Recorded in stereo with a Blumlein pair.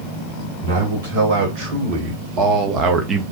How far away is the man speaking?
About 1.7 m.